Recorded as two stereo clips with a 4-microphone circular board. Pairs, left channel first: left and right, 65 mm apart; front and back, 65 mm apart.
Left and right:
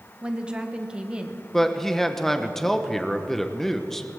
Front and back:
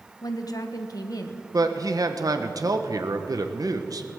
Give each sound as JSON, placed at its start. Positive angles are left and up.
{"t": 0.2, "sound": "a woman speaking", "azimuth_deg": -15, "distance_m": 1.0}
{"t": 1.5, "sound": "a man speaking", "azimuth_deg": 175, "distance_m": 0.9}